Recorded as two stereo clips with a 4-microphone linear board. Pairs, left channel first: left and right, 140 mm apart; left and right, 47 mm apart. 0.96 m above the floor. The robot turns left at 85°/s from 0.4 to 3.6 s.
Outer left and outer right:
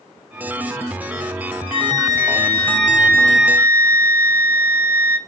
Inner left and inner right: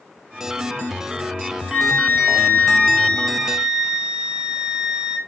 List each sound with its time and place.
1.7 s a flute: 140° left, 1.4 m; by 5.2 s 20° right, 1.4 m